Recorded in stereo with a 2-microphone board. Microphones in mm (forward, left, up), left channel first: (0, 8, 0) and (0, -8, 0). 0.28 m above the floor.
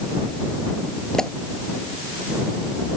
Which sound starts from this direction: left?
A pop, at 1.1 s.